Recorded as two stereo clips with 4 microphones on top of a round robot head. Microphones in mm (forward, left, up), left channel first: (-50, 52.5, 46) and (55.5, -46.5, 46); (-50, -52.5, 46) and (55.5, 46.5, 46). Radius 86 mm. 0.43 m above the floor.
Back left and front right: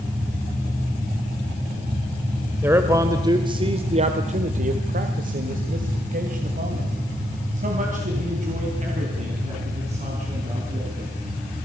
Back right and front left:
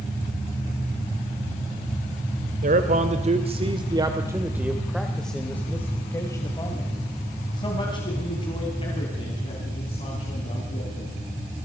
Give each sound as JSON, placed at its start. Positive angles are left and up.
{"t": 2.6, "sound": "a man speaking", "azimuth_deg": 30, "distance_m": 1.9}